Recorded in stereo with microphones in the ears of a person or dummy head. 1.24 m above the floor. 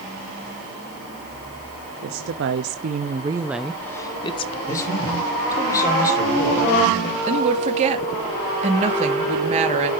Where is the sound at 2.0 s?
65° right (ahead or behind), 1.0 m; by 4.6 s 30° left (ahead or behind), 1.0 m.